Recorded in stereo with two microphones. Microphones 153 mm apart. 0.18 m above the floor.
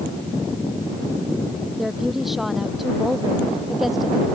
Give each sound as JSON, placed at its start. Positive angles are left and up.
{"t": 1.8, "sound": "a woman speaking", "side_deg": 0}